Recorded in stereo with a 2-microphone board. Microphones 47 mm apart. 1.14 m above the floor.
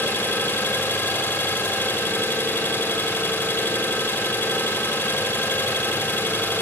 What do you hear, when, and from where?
0.0 s an engine running: 50° left (ahead or behind), 1.5 m